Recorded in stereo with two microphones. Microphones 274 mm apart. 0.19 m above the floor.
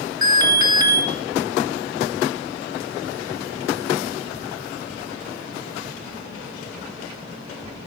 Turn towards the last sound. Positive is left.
turn(degrees=-15)  # may be behind; listen again after turning